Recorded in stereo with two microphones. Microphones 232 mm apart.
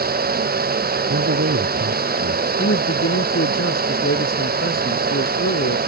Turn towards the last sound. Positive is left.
turn(degrees=65)  # may be behind; listen again after turning